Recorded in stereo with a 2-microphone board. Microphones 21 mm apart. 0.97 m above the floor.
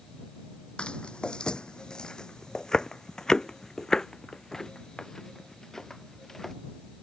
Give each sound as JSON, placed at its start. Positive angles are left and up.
{"t": 0.8, "sound": "footsteps", "side_deg": 45}